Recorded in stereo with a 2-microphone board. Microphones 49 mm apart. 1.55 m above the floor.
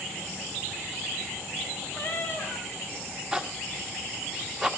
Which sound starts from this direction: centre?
A zipper, at 3.3 s.